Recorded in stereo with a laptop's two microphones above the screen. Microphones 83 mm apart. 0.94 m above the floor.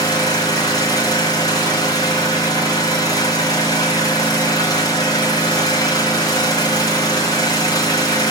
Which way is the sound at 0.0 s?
45° left (ahead or behind).